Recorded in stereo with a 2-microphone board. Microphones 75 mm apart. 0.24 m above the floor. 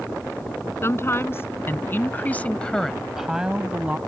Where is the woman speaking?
35° left (ahead or behind); by 4.0 s 20° right (ahead or behind).